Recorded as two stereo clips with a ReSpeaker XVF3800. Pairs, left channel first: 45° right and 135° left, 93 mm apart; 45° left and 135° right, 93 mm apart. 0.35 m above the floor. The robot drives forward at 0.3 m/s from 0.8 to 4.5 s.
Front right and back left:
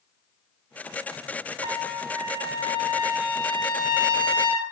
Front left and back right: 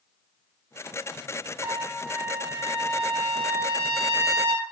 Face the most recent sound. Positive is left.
turn(degrees=160)